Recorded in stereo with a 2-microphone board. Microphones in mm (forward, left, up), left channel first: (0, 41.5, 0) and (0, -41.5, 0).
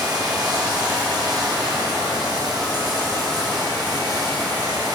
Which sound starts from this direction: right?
Running water, at 0.0 s.